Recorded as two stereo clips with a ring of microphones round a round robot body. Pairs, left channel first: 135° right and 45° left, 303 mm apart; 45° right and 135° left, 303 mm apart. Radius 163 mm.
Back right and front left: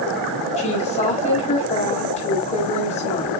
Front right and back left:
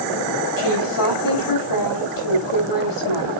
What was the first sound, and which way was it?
A woman speaking, 70° right.